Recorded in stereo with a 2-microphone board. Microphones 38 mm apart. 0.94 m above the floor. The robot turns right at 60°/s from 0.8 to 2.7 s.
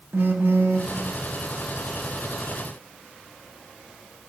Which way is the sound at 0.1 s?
70° right (ahead or behind).